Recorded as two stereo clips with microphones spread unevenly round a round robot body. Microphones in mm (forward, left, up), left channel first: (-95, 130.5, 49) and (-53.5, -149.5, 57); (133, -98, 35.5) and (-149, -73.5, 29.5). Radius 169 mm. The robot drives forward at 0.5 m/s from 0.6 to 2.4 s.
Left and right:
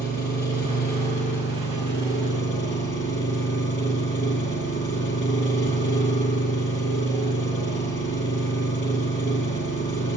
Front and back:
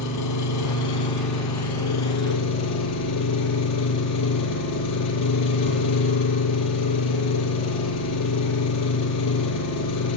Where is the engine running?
35° left, 8 m; by 10.2 s 40° left, 7.5 m.